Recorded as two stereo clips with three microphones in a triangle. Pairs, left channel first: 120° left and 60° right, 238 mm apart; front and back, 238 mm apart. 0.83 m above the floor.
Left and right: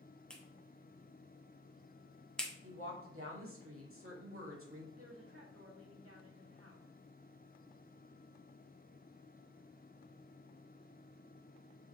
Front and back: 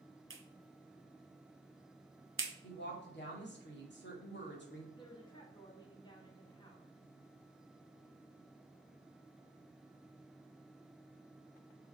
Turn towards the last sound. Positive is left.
turn(degrees=-70)